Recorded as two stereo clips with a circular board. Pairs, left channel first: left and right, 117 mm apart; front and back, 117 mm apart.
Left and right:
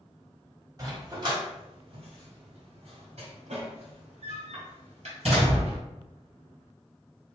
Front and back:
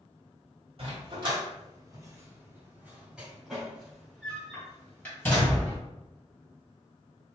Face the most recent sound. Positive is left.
turn(degrees=-70)